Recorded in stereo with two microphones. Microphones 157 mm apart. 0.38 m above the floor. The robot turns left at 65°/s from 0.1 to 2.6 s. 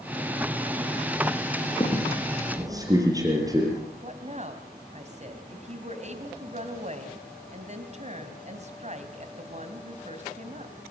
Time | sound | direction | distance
1.8 | a squeak | 30° left (ahead or behind) | 5.5 m
4.0 | a woman speaking | 45° right (ahead or behind) | 2.5 m